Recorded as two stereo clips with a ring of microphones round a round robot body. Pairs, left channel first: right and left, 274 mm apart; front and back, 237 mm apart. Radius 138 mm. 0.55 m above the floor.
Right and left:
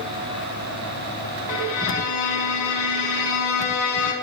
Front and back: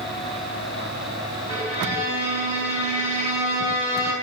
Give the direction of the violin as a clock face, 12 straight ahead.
2 o'clock.